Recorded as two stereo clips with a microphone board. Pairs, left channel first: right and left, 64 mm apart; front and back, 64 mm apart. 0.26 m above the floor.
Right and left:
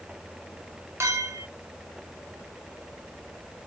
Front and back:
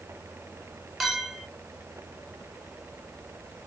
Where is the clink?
90° left, 1.1 m.